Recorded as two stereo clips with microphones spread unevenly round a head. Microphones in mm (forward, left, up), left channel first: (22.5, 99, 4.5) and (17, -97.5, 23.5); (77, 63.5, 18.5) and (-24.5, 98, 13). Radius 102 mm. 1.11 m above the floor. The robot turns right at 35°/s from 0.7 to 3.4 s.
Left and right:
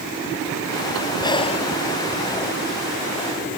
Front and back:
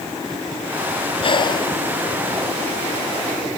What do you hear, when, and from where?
1.2 s breathing: 15° left; by 1.7 s 35° left